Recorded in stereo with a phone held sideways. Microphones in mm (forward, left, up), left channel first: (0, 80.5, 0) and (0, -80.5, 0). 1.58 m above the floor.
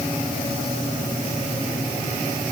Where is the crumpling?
No crumpling in this recording.